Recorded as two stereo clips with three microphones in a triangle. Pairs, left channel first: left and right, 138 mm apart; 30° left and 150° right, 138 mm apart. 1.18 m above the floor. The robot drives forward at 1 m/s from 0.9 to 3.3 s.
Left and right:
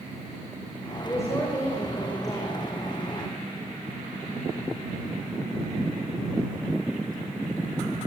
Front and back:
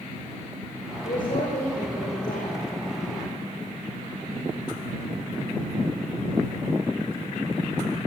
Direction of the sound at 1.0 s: 20° left.